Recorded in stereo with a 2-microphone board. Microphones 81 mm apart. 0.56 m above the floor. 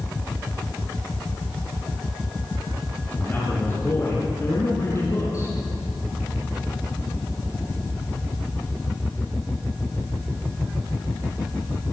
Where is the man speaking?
25° left (ahead or behind), 6 m; by 5.5 s 40° left (ahead or behind), 5.5 m.